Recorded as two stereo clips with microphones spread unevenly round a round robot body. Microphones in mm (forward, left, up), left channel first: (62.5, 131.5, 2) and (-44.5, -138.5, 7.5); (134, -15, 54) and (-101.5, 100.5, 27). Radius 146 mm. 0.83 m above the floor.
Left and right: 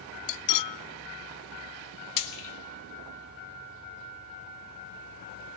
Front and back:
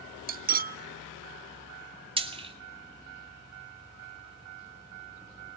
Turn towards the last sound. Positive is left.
turn(degrees=85)